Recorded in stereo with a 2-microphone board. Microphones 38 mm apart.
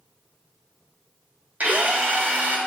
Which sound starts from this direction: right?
A drill, at 1.6 s.